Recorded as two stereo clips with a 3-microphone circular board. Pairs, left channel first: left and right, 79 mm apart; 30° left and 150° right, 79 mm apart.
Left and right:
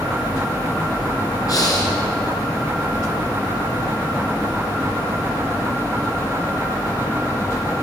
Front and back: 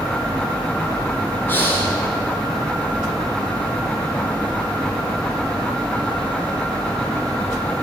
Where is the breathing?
85° left, 1.5 m.